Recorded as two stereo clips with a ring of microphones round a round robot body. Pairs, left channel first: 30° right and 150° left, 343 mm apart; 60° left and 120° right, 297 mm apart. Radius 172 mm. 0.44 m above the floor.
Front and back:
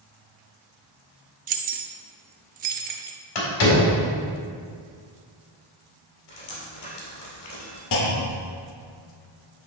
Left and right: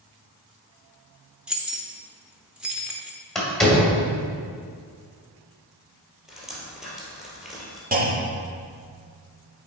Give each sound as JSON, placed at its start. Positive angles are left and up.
{"t": 1.5, "sound": "keys jangling", "azimuth_deg": 160, "distance_m": 0.5}
{"t": 3.4, "sound": "a door slam", "azimuth_deg": -30, "distance_m": 2.0}
{"t": 6.3, "sound": "dripping", "azimuth_deg": -30, "distance_m": 2.5}
{"t": 7.9, "sound": "a clunk", "azimuth_deg": -60, "distance_m": 1.2}